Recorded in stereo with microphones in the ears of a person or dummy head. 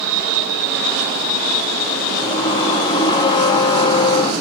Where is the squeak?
20° left (ahead or behind), 0.6 m.